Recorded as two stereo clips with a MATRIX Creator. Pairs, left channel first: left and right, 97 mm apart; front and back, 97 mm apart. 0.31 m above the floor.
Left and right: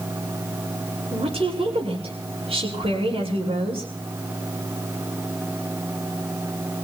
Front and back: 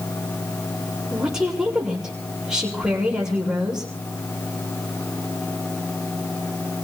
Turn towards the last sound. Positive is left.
turn(degrees=-95)